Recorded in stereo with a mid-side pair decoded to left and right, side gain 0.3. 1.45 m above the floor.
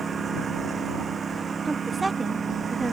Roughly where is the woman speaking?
Ahead right.